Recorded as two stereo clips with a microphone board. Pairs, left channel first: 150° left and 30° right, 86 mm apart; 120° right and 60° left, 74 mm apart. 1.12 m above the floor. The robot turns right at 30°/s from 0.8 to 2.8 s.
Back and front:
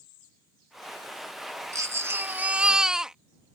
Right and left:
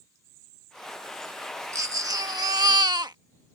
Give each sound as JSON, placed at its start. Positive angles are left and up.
{"t": 1.7, "sound": "a baby crying", "azimuth_deg": 20}